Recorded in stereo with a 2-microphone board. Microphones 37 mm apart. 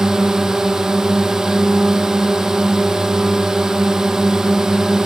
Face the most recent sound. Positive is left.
turn(degrees=-15)  # may be behind; listen again after turning